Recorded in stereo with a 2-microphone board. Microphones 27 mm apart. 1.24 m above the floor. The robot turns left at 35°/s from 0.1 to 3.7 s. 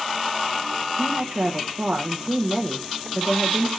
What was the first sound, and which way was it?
A woman speaking, 105° right.